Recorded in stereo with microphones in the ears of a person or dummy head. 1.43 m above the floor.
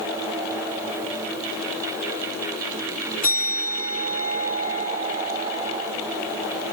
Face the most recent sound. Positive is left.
turn(degrees=45)  # may be behind; listen again after turning